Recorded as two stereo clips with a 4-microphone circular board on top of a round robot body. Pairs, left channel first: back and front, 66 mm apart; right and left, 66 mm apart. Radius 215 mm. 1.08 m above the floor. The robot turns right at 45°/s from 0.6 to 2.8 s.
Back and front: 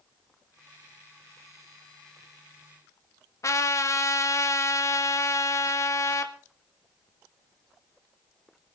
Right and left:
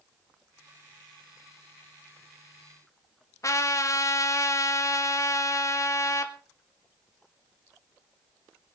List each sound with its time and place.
3.4 s a trumpet: 135° right, 1.7 m